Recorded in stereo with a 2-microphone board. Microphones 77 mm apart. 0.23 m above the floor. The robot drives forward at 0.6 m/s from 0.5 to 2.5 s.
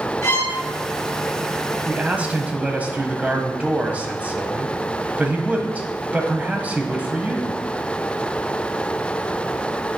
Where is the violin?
40° left (ahead or behind), 3.5 m.